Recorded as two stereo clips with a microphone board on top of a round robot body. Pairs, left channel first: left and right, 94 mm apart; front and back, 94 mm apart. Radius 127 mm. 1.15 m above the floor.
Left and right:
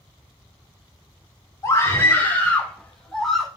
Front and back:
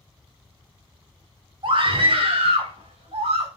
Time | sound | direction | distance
1.6 | a scream | 150° left | 3.5 m